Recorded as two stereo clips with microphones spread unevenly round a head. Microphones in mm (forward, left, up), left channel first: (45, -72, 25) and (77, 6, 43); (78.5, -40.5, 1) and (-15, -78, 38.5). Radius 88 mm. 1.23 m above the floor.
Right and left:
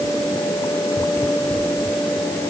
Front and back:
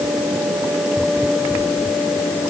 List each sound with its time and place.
Only background noise.